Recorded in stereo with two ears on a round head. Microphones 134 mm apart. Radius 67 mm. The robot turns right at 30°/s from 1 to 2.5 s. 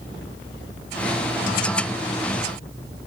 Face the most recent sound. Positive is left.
No sound to turn to.